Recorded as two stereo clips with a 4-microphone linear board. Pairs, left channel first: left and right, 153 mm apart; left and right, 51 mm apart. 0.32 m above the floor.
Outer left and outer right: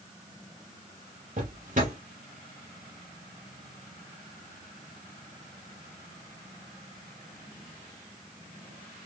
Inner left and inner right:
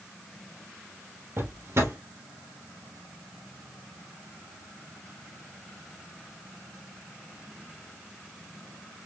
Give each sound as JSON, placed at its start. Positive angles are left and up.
{"t": 1.4, "sound": "a drawer", "side_deg": -60, "distance_m": 3.0}